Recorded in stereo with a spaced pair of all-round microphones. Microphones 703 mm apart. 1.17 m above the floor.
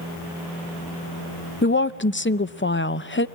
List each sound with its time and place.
1.6 s a woman speaking: 20° left (ahead or behind), 0.6 m